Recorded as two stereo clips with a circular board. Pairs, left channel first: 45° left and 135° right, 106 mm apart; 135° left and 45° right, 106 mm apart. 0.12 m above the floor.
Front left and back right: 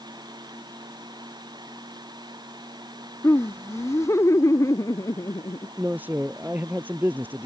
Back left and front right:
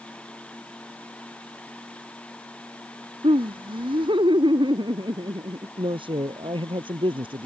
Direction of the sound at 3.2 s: 20° right.